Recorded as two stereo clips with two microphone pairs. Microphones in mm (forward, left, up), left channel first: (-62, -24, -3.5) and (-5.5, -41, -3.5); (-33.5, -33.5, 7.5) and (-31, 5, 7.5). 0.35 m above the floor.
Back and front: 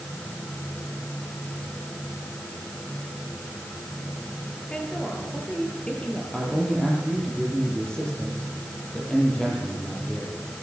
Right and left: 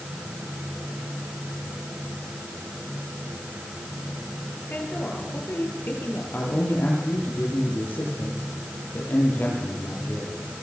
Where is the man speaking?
120° right, 10 m.